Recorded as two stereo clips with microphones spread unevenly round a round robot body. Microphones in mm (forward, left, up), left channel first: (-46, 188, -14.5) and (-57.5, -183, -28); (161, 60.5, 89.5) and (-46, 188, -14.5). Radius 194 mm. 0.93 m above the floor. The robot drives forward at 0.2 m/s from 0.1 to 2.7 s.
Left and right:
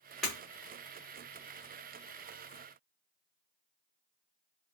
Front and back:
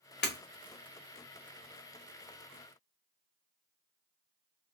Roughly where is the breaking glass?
Ahead.